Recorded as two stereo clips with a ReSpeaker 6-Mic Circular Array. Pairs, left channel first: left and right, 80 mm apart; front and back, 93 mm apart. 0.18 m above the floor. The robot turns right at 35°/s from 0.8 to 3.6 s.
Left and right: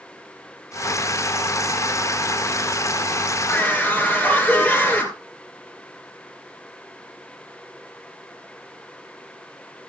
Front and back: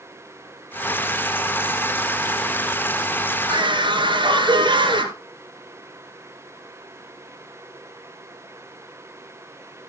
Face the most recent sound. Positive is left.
turn(degrees=160)